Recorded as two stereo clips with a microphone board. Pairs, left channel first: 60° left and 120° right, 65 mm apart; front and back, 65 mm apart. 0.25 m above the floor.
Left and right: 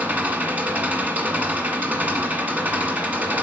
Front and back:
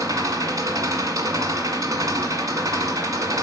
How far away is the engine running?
About 1.7 m.